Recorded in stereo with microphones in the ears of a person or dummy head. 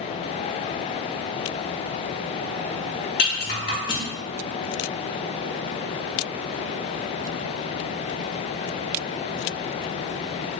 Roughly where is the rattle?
Left.